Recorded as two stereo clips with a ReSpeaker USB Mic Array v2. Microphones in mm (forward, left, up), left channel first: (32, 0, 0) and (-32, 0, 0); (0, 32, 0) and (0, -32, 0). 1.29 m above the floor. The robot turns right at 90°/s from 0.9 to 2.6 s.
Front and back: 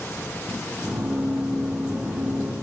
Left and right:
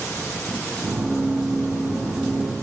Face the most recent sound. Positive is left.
No sound to turn to.